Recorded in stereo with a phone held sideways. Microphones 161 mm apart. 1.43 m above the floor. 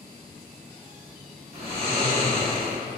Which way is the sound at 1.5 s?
40° right (ahead or behind).